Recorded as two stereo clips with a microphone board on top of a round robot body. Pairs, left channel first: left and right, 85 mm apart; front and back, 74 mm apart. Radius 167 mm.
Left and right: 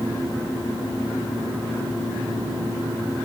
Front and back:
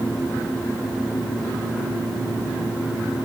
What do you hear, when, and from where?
Only background noise.